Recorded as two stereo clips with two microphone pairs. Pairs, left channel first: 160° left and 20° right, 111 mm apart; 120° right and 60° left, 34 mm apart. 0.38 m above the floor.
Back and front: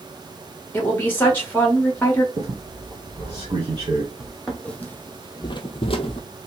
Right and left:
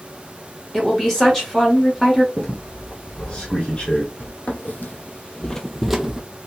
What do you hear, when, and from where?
0.7 s a woman speaking: 165° right, 1.1 m
2.4 s a squeak: 65° right, 2 m
4.2 s footsteps: 110° right, 1.0 m; by 6.2 s 135° left, 0.7 m